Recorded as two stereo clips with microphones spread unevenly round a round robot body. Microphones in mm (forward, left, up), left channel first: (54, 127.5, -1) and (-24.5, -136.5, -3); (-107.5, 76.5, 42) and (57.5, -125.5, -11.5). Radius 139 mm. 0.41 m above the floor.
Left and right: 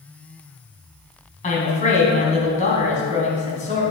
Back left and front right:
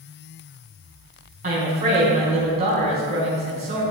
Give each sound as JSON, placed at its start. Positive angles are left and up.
{"t": 1.4, "sound": "a woman speaking", "azimuth_deg": 10, "distance_m": 3.5}